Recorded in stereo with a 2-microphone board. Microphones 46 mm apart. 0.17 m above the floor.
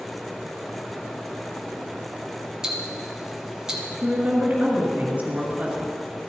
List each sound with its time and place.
2.6 s ticking: 15° right (ahead or behind), 1.2 m
4.0 s a woman speaking: 30° right (ahead or behind), 2 m